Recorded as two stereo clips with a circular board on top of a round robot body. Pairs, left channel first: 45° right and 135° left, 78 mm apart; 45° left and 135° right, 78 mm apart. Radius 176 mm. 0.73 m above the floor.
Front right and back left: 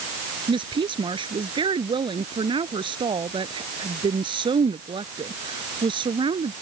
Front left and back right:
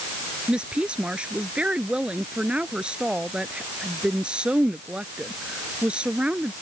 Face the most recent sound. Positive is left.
turn(degrees=145)